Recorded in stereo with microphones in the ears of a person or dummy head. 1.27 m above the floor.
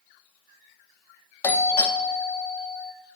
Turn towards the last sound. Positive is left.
turn(degrees=15)  # may be behind; listen again after turning